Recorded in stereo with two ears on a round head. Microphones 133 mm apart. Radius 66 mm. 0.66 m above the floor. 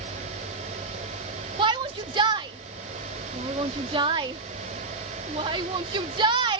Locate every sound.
1.6 s a shout: 30° right (ahead or behind)